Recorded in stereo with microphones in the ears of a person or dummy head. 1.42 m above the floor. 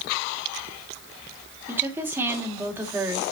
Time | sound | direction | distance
1.7 | a woman speaking | 15° right (ahead or behind) | 2.5 m